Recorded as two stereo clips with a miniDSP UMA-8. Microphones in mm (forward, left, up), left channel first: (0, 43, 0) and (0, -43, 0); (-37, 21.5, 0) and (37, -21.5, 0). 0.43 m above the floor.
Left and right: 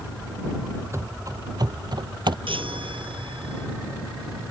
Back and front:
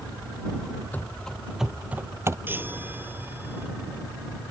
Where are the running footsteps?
140° right; by 2.4 s 80° right.